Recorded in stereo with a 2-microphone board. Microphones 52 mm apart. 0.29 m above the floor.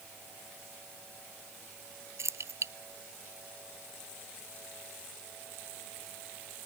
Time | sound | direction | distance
2.2 | keys jangling | 65° right (ahead or behind) | ?